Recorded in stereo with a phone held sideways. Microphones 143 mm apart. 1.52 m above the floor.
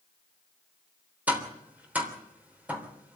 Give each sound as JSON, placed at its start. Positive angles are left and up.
{"t": 1.3, "sound": "tapping", "side_deg": -10, "distance_m": 3.5}